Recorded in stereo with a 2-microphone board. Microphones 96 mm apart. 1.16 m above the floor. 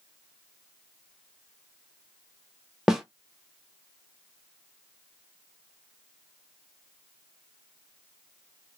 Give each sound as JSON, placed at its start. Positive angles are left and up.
{"t": 2.9, "sound": "a snare drum", "side_deg": -5, "distance_m": 0.7}